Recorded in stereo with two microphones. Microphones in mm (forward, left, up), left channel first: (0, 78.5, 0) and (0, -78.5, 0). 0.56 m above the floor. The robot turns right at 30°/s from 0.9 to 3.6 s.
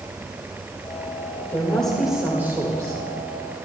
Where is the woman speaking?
165° left, 2 m; by 3.0 s 150° right, 2 m.